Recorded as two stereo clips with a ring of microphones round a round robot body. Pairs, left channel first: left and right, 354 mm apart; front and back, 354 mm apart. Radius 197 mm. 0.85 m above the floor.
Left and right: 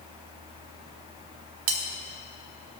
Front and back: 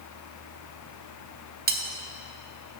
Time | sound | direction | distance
1.7 | cutlery clinking | 115° right | 1.4 m